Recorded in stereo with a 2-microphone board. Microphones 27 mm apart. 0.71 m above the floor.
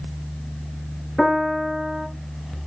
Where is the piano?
5° right (ahead or behind), 8.5 m.